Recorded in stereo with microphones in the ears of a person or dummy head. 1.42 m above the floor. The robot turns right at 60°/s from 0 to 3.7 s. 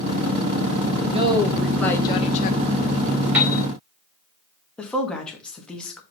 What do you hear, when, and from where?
1.1 s a woman speaking: 35° right, 1.4 m; by 2.6 s 55° left, 1.4 m
3.3 s a piano: 5° right (ahead or behind), 1.5 m; by 3.6 s 20° right (ahead or behind), 1.5 m
4.8 s a woman speaking: 5° left (ahead or behind), 1.6 m